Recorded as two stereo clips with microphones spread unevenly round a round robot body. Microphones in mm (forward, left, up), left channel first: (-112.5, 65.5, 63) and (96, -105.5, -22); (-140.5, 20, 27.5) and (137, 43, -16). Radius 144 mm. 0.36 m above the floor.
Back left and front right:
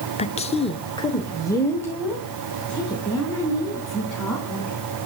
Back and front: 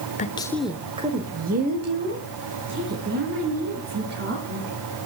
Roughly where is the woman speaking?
Behind right.